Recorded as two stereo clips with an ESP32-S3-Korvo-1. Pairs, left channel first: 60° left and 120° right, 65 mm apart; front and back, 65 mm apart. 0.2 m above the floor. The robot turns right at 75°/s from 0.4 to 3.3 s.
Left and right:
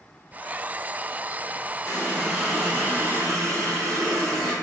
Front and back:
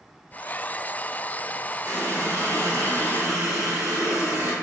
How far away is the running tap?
About 1.6 m.